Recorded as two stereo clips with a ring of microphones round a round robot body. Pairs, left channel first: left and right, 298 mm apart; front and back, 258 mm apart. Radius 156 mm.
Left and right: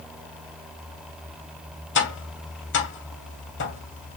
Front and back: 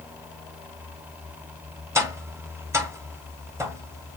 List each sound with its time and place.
1.9 s tapping: 105° left, 1.3 m